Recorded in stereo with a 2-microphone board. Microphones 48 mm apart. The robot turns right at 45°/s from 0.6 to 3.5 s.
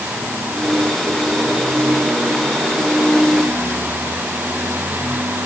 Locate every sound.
Only background noise.